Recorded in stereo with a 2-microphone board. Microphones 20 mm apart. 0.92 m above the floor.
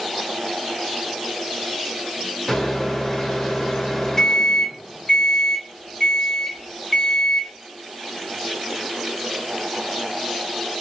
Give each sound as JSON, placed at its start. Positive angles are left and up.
{"t": 2.5, "sound": "a microwave", "side_deg": 20, "distance_m": 1.9}